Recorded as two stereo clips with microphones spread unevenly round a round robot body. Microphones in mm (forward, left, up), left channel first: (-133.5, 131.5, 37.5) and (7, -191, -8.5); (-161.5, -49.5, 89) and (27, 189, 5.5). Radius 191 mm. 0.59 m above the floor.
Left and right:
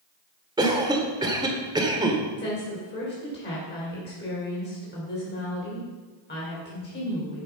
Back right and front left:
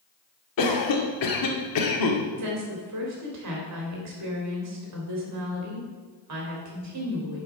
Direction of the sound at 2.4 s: 45° left.